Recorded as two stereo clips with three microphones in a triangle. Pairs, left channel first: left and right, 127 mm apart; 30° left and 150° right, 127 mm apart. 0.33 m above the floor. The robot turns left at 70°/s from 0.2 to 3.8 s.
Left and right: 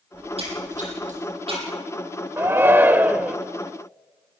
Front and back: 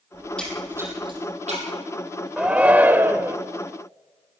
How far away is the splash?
About 9 m.